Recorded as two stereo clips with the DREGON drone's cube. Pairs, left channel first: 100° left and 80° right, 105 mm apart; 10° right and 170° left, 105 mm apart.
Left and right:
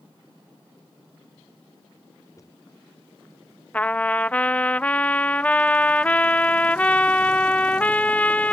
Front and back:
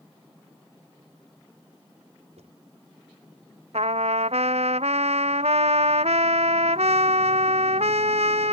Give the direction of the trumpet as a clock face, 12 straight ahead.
6 o'clock.